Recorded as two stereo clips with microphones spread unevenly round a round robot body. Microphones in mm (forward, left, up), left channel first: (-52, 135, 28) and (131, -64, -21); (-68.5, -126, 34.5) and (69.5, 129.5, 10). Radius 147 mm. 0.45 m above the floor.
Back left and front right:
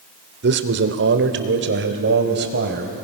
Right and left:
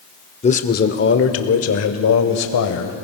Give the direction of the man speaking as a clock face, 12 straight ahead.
2 o'clock.